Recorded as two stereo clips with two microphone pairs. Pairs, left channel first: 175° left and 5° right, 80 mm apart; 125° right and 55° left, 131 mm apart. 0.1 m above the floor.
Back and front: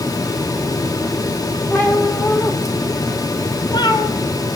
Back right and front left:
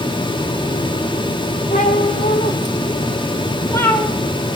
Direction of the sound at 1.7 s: 115° right.